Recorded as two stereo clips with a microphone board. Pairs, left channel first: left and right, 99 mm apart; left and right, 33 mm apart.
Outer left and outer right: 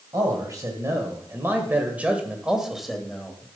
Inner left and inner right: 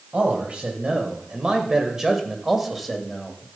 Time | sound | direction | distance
0.1 | a man speaking | 40° right (ahead or behind) | 1.9 m